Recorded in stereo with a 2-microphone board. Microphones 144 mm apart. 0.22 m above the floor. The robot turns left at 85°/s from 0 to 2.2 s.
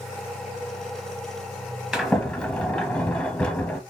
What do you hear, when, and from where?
1.9 s a sliding door: 5° right (ahead or behind), 0.9 m; by 3.8 s 5° left (ahead or behind), 0.9 m